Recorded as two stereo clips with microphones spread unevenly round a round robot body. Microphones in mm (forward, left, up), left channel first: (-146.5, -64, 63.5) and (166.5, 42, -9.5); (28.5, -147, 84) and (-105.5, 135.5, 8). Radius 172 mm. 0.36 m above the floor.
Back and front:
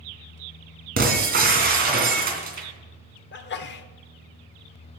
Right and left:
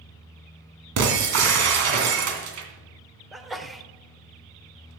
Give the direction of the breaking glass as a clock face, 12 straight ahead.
9 o'clock.